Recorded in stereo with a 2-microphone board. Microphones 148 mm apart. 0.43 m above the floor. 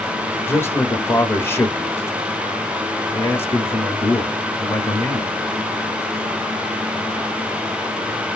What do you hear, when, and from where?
0.5 s a man speaking: 15° left (ahead or behind), 1.2 m